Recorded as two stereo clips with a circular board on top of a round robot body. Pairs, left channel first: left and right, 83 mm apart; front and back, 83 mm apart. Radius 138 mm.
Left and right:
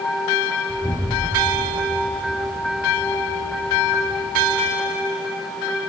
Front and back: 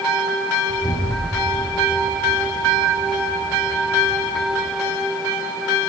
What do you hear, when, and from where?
0.7 s an explosion: 155° right, 0.7 m